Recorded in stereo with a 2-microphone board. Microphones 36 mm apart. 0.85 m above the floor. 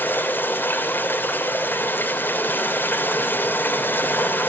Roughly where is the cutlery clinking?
I don't hear cutlery clinking.